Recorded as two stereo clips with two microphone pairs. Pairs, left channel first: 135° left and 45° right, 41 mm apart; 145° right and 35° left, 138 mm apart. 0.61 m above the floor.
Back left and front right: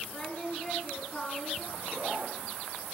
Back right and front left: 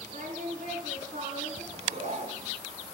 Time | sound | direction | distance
0.1 | singing | 55° left | 6 m
1.7 | a zipper | straight ahead | 3 m